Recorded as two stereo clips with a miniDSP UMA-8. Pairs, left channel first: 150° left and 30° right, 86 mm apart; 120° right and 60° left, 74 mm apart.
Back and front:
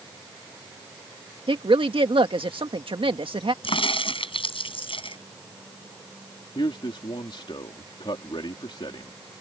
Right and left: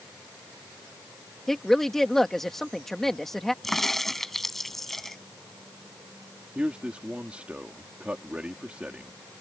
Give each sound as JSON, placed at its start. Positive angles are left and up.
{"t": 1.5, "sound": "a woman speaking", "azimuth_deg": -35}
{"t": 3.6, "sound": "a crack", "azimuth_deg": 150}
{"t": 6.5, "sound": "a man speaking", "azimuth_deg": 135}